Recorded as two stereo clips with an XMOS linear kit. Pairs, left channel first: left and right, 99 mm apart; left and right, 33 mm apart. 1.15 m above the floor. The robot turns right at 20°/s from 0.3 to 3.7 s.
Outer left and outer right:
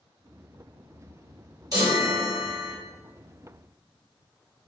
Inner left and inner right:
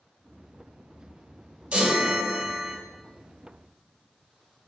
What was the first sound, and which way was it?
A chime, 35° right (ahead or behind).